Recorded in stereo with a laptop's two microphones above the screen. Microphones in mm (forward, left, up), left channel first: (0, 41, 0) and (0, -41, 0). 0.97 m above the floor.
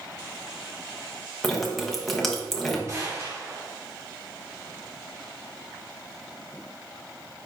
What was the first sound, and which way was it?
Dripping, centre (ahead or behind).